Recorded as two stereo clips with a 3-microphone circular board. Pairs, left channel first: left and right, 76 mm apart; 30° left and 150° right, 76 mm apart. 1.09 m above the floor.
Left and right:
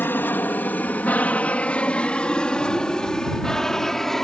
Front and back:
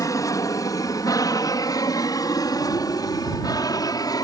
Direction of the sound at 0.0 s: 35° left.